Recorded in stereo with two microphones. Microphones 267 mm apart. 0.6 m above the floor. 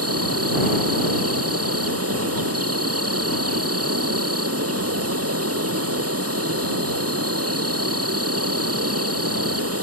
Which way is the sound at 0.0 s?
65° right (ahead or behind).